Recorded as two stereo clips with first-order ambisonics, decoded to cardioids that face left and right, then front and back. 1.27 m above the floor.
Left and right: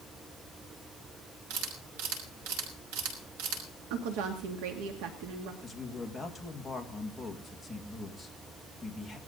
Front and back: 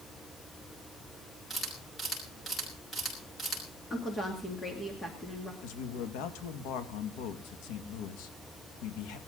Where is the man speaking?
Straight ahead, 1.9 m.